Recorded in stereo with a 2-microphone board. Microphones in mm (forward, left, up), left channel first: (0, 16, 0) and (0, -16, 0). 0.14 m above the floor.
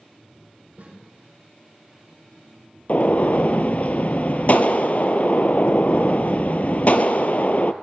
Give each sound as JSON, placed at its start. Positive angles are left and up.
{"t": 0.8, "sound": "a snare drum", "side_deg": -55, "distance_m": 6.0}
{"t": 2.9, "sound": "a gunshot", "side_deg": 45, "distance_m": 0.5}